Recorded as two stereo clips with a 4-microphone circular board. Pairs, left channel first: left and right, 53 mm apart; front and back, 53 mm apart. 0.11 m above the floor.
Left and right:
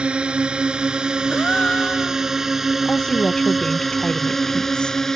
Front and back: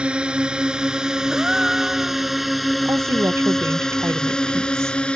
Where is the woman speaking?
160° left.